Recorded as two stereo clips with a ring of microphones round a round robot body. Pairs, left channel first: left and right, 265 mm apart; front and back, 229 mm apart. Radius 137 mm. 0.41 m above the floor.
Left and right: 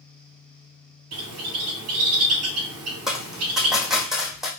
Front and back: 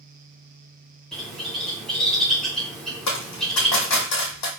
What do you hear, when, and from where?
1.1 s a bird: 90° right, 1.0 m
3.1 s a dropped coin: straight ahead, 1.7 m